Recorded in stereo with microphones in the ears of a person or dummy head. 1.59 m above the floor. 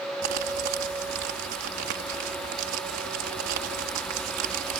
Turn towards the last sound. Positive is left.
turn(degrees=-60)  # may be behind; listen again after turning